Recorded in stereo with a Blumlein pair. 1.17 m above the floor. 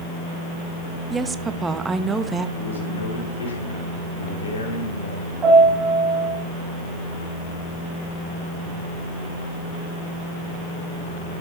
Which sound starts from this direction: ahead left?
A man speaking, at 2.6 s.